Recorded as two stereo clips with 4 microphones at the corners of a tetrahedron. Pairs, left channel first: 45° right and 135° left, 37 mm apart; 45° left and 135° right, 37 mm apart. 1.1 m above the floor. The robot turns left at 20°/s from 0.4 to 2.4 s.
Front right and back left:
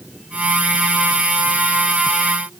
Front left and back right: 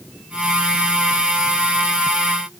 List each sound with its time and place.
Only background noise.